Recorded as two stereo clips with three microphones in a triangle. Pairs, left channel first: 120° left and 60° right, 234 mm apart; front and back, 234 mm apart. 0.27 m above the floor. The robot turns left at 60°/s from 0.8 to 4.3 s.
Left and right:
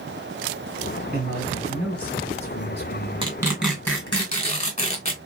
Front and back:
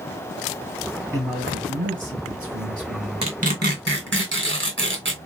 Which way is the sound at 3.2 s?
120° right.